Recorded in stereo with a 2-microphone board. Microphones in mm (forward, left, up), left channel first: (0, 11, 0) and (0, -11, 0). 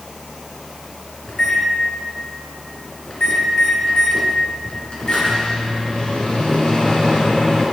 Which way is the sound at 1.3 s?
40° left (ahead or behind).